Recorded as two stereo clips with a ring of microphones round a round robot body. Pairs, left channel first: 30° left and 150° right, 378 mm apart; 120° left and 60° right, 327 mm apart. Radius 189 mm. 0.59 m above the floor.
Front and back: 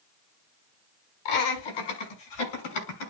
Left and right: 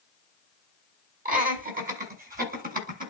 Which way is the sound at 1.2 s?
5° left.